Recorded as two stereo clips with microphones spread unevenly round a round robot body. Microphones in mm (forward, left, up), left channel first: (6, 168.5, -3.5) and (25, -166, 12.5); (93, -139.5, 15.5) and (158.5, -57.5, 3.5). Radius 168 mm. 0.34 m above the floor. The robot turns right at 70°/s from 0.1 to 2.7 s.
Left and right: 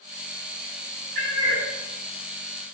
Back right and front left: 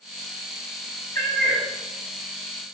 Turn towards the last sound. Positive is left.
turn(degrees=45)